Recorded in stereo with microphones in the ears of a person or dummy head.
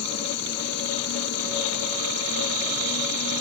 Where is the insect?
60° left (ahead or behind).